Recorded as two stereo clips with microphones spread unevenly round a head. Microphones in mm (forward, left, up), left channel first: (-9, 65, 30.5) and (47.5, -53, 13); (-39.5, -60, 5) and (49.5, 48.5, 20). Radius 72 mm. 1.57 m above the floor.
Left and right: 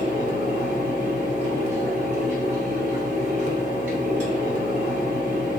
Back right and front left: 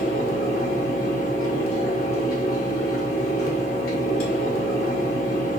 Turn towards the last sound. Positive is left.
turn(degrees=-110)